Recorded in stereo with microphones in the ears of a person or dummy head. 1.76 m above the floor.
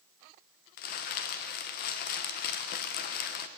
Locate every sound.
0.8 s crumpling: 50° left (ahead or behind), 1.1 m